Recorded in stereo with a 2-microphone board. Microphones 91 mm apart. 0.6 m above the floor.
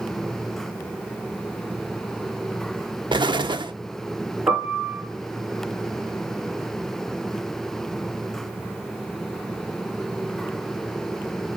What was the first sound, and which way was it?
An explosion, 60° right (ahead or behind).